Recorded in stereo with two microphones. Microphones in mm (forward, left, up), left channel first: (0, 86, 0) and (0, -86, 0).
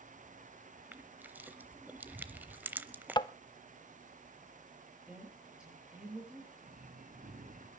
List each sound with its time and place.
0.9 s crushing: 10° right (ahead or behind), 0.8 m
3.2 s tapping: 25° left (ahead or behind), 0.6 m
5.1 s a woman speaking: 5° right (ahead or behind), 8 m
6.6 s breathing: 55° right (ahead or behind), 3.5 m